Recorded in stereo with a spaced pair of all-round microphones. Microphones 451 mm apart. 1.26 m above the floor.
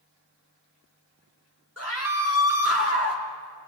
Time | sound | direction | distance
1.8 | a scream | 30° left (ahead or behind) | 4 m